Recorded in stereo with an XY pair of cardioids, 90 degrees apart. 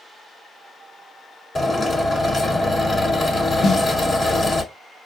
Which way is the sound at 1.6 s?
40° left.